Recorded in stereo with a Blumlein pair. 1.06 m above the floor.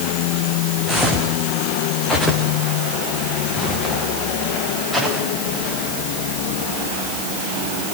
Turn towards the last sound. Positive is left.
turn(degrees=-5)